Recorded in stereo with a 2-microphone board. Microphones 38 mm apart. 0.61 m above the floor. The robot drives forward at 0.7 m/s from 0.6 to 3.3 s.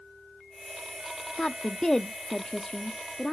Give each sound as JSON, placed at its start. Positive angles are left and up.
{"t": 1.4, "sound": "a woman speaking", "side_deg": 15, "distance_m": 0.8}